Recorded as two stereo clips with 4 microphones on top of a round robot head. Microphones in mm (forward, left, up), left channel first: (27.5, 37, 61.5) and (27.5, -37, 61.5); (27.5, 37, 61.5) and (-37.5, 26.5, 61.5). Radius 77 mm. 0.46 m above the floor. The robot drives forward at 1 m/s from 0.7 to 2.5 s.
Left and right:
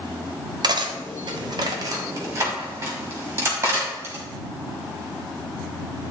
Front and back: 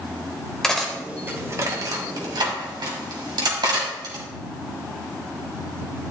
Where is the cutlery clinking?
75° right, 1.0 m; by 4.2 s 150° right, 1.8 m.